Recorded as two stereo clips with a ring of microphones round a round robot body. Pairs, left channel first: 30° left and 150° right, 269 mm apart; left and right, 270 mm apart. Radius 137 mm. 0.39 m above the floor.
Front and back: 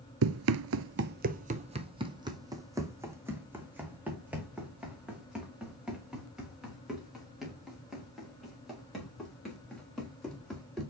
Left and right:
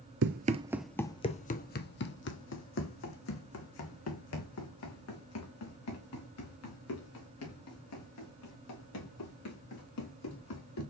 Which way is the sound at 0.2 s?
125° right.